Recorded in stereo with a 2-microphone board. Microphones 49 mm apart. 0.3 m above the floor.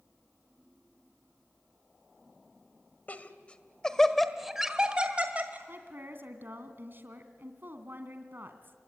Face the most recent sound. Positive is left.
turn(degrees=-45)  # may be behind; listen again after turning